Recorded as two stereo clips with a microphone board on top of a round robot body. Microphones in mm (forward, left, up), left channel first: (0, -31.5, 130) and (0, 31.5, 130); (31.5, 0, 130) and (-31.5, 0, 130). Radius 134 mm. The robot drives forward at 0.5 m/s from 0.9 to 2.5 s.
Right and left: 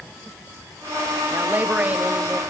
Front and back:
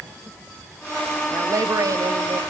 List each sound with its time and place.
1.3 s a woman speaking: 150° left, 2 m; by 2.4 s 160° left, 2.5 m